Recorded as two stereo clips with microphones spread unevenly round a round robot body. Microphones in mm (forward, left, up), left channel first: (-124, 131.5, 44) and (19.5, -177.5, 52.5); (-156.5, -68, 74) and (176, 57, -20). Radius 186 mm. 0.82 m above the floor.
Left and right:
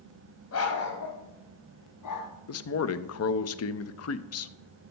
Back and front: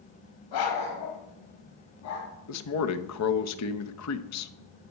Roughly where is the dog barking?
Behind.